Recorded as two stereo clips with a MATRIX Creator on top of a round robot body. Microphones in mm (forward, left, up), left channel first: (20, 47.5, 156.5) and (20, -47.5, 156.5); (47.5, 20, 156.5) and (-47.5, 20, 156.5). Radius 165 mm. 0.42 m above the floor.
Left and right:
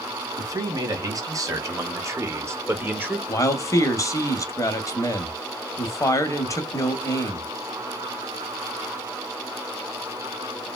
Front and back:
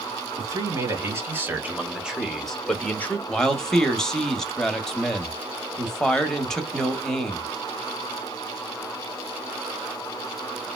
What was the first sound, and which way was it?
A man speaking, 130° right.